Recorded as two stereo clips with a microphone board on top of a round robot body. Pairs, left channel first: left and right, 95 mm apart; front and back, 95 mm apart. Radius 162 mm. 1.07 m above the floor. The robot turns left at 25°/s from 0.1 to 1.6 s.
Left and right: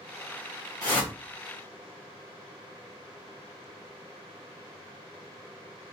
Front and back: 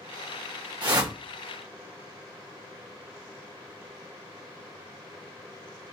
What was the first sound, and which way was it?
A whoosh, 140° left.